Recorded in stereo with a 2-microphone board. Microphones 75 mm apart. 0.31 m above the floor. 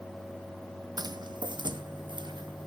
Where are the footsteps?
60° right (ahead or behind), 0.6 m; by 2.7 s 75° right (ahead or behind), 1.8 m.